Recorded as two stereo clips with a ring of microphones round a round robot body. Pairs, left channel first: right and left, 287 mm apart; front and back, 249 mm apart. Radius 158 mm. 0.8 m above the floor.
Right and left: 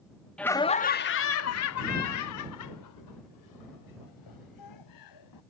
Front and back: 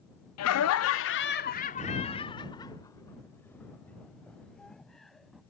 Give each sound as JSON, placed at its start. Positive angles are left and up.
{"t": 0.4, "sound": "laughter", "azimuth_deg": -5}